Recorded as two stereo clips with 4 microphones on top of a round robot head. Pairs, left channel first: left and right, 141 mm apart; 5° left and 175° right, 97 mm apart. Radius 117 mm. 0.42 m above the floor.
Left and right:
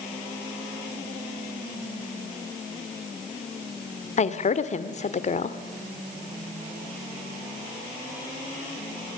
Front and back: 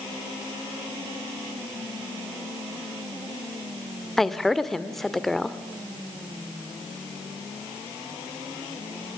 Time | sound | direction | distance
4.2 | a woman speaking | 90° left | 1.4 m